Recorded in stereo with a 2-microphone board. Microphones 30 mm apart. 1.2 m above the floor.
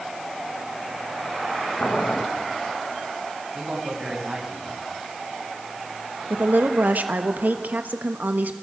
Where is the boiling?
70° left (ahead or behind), 1.6 m.